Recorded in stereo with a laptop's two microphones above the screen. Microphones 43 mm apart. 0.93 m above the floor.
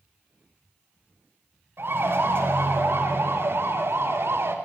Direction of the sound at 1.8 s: 60° right (ahead or behind).